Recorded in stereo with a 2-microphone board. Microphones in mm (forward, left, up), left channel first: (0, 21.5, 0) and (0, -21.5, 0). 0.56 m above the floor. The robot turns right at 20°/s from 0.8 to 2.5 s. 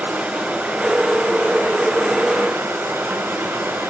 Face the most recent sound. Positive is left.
turn(degrees=-95)